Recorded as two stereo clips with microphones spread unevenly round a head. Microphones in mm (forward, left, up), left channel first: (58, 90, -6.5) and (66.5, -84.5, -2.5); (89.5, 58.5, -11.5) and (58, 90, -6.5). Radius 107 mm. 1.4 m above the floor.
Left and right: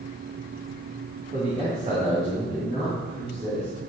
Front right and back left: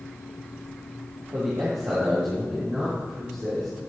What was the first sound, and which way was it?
A man speaking, 150° right.